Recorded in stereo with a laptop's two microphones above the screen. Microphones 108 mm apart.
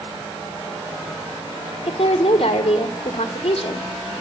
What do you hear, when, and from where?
1.9 s a woman speaking: 80° left, 2 m